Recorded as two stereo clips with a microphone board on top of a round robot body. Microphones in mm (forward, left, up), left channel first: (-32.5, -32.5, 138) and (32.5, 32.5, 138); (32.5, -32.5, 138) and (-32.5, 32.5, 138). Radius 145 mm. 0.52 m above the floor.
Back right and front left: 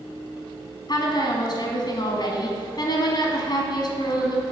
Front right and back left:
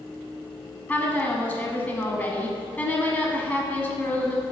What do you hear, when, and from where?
0.9 s a woman speaking: 120° right, 1.2 m